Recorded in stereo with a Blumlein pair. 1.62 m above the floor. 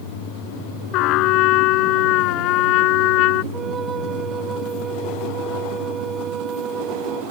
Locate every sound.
0.9 s a trumpet: 40° left
3.5 s a flute: 20° right